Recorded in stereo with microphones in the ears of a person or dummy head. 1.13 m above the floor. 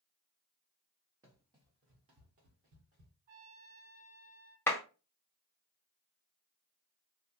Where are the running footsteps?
10° right (ahead or behind), 1.1 m; by 3.1 s 45° right (ahead or behind), 2 m.